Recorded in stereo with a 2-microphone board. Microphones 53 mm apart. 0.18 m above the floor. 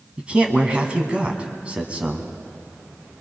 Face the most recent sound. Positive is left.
turn(degrees=-20)  # may be behind; listen again after turning